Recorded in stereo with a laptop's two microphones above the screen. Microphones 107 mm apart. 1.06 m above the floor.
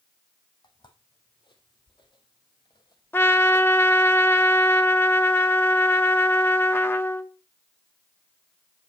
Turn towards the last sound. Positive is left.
turn(degrees=20)  # may be behind; listen again after turning